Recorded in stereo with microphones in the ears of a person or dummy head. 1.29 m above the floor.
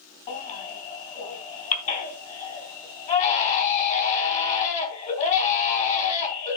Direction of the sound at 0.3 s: 40° left (ahead or behind).